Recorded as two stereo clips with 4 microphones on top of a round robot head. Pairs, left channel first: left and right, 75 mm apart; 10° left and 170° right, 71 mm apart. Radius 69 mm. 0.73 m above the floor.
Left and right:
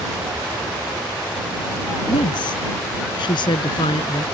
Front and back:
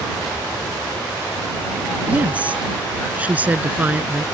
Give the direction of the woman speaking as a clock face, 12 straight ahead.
8 o'clock.